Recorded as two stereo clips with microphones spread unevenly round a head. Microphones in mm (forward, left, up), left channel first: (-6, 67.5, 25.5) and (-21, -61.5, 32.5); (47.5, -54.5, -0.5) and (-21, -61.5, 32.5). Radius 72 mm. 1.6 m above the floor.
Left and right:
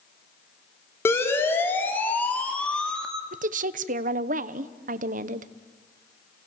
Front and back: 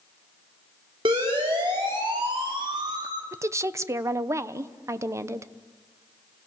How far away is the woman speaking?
About 1.0 m.